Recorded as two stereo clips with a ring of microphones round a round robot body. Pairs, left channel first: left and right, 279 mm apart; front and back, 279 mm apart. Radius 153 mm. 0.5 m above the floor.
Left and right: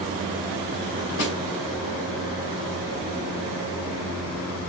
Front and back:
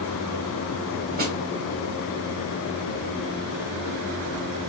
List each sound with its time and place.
1.2 s a snare drum: 125° left, 1.9 m